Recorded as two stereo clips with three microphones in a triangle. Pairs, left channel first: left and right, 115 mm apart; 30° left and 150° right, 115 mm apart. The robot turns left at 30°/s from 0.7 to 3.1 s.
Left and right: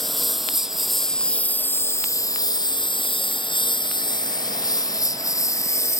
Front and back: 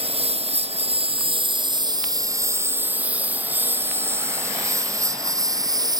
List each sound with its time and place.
0.0 s a lawn mower: straight behind; by 6.0 s 155° left